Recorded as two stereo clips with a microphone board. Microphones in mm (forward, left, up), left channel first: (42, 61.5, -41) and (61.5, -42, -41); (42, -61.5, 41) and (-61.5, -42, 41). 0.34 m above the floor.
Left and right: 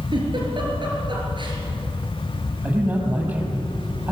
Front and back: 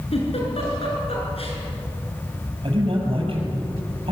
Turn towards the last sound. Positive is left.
turn(degrees=-155)